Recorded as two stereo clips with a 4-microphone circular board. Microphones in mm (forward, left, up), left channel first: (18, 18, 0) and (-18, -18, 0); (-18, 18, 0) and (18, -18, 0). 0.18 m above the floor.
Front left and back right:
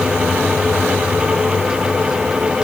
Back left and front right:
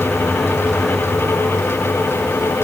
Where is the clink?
I don't hear a clink.